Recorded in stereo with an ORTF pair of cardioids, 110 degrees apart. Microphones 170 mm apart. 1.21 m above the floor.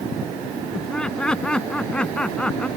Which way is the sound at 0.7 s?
5° left.